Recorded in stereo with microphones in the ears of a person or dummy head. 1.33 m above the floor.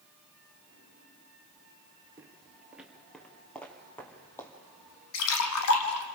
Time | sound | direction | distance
2.2 | footsteps | 15° right (ahead or behind) | 1.6 m
5.1 | a splash | 75° left (ahead or behind) | 1.5 m